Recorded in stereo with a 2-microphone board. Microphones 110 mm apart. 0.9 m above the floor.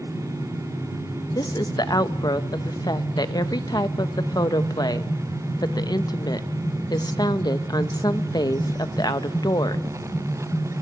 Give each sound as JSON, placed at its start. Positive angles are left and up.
{"t": 1.4, "sound": "a woman speaking", "side_deg": 35, "distance_m": 0.9}